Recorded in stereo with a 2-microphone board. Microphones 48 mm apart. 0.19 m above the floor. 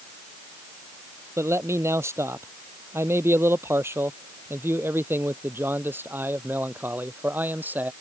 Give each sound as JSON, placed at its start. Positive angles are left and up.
{"t": 1.4, "sound": "a man speaking", "side_deg": -70}